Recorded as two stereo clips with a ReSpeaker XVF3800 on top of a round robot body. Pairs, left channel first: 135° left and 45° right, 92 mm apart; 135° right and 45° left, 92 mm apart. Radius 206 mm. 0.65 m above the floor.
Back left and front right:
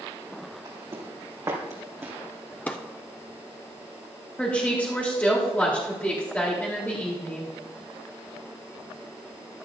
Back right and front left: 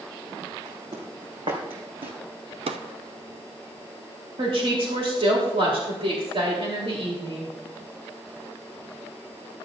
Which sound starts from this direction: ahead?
Footsteps, at 0.7 s.